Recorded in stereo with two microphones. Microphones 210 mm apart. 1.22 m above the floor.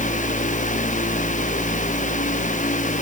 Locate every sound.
Only background noise.